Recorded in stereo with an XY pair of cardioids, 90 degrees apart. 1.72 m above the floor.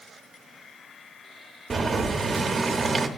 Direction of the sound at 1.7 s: 45° right.